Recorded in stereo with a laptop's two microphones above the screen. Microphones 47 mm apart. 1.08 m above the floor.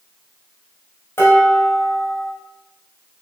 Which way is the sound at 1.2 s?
60° left (ahead or behind).